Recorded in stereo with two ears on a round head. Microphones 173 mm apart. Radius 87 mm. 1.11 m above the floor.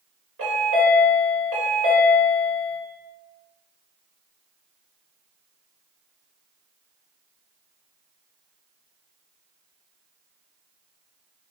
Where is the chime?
80° right, 1.7 m.